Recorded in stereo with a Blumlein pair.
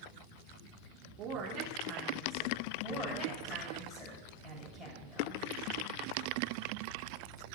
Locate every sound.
1.2 s a woman speaking: 40° right, 3 m
2.8 s a woman speaking: 20° left, 7 m